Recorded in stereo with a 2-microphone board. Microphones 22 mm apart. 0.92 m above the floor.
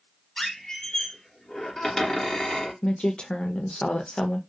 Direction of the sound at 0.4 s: 25° left (ahead or behind).